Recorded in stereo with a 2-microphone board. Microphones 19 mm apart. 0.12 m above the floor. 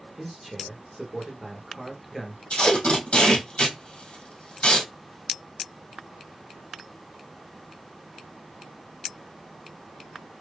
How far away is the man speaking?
About 1.8 m.